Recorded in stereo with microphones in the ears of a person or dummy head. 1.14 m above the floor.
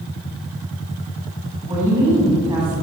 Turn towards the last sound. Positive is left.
turn(degrees=-15)  # may be behind; listen again after turning